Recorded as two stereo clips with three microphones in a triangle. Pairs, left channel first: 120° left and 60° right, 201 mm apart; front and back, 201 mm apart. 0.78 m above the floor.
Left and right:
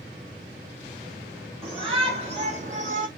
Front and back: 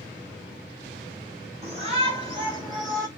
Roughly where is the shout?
Behind right.